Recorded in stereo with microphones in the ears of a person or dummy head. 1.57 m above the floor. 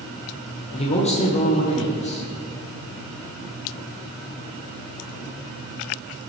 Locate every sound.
0.7 s a man speaking: 30° left (ahead or behind), 1.3 m